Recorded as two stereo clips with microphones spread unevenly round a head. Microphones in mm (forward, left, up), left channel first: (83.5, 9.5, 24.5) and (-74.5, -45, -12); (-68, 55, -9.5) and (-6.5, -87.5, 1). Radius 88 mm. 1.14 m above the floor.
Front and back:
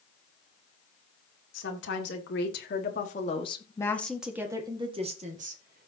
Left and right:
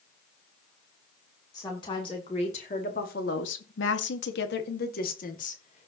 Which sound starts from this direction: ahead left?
A woman speaking, at 1.5 s.